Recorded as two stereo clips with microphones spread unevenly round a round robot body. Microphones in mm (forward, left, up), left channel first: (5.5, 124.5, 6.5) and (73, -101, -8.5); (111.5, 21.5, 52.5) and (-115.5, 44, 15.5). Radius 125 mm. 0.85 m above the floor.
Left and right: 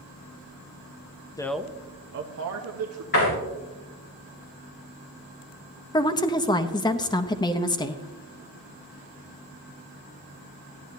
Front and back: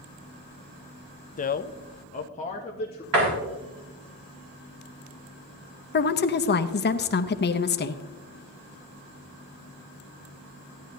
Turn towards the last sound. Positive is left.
turn(degrees=35)